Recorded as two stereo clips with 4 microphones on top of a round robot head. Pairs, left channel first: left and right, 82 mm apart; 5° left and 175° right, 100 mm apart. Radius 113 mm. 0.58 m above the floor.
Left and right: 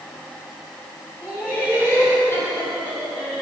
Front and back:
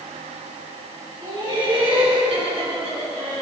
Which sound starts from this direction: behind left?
Laughter, at 1.2 s.